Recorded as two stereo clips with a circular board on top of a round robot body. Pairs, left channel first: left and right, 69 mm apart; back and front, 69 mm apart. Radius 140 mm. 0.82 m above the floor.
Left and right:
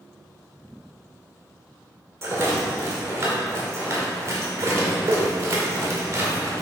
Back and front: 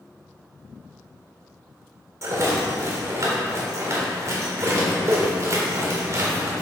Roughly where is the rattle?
Ahead right.